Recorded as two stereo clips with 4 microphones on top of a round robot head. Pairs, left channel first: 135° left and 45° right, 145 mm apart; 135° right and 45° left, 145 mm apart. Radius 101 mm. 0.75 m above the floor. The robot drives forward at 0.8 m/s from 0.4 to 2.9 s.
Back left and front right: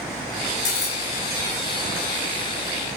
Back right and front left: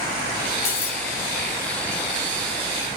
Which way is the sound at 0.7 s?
160° right.